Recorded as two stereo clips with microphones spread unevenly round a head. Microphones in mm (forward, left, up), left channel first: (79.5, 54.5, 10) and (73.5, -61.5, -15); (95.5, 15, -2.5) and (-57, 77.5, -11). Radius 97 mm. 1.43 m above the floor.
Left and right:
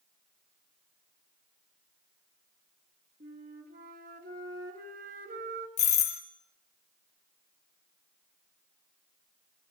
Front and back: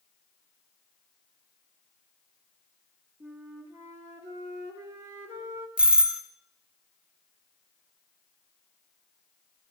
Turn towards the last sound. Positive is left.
turn(degrees=75)